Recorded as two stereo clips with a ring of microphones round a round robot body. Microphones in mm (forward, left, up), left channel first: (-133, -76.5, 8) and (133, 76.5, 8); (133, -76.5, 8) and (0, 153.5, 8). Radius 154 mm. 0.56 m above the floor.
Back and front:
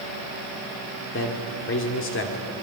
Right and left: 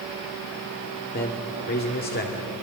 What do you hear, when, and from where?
1.1 s a man speaking: 110° right, 1.9 m